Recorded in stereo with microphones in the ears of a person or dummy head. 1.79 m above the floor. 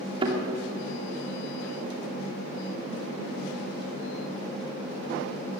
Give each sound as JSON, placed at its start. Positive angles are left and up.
{"t": 0.2, "sound": "a thud", "side_deg": -25, "distance_m": 2.5}